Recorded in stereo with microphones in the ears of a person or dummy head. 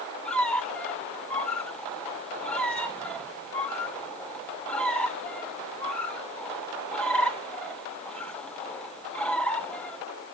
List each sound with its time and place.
0.2 s a squeak: 10° left (ahead or behind), 0.8 m